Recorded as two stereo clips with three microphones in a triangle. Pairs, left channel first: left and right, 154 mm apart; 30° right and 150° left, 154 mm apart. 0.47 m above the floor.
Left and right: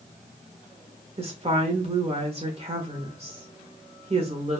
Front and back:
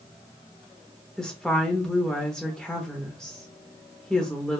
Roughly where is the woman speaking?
Behind right.